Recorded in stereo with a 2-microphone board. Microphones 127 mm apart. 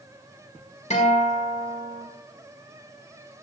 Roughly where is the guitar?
Left.